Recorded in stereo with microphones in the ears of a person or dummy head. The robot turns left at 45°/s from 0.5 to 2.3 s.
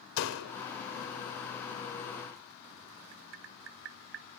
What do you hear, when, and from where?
0.2 s a door slam: 75° left (ahead or behind), 4 m; by 0.5 s 80° left, 4 m
3.1 s tapping: 65° right (ahead or behind), 1.4 m